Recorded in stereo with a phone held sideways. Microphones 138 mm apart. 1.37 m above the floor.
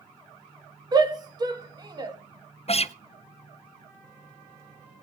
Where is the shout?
30° right (ahead or behind), 2.5 m.